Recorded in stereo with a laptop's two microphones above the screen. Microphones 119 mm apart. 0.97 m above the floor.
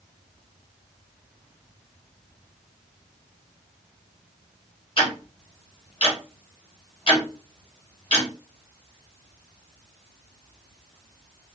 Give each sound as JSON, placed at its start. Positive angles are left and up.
{"t": 5.0, "sound": "ticking", "side_deg": 50, "distance_m": 0.8}